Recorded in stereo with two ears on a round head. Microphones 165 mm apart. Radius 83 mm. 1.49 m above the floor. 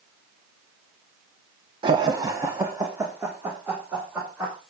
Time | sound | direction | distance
1.8 | laughter | 25° right (ahead or behind) | 0.6 m